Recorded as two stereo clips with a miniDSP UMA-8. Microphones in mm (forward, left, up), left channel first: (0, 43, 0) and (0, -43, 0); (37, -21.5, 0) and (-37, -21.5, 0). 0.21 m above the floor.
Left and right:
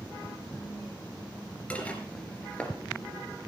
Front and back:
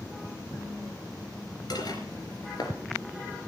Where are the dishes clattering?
15° left, 2.5 m.